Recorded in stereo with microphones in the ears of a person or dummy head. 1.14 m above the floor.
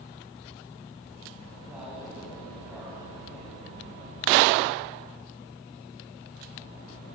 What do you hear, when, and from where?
1.7 s a man speaking: 10° right (ahead or behind), 6.5 m; by 3.5 s centre (ahead or behind), 5.5 m